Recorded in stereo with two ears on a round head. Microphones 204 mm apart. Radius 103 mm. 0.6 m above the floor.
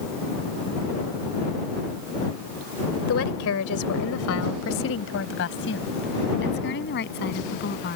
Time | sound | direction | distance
3.1 | a woman speaking | 65° left (ahead or behind) | ?